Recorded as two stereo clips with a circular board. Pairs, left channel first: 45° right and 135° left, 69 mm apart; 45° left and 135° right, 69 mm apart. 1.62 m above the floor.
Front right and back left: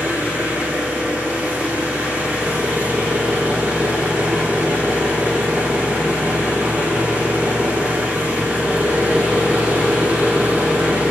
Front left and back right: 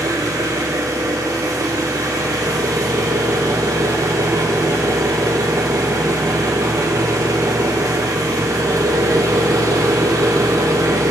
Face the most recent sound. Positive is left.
turn(degrees=-160)